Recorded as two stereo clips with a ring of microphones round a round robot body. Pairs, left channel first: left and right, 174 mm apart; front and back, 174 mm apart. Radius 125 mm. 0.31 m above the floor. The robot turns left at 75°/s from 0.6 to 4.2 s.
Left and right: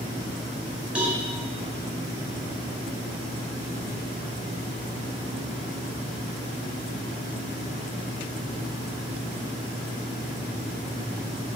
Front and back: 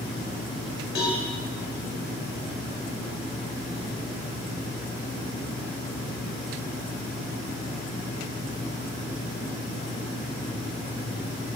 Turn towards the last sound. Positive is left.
turn(degrees=110)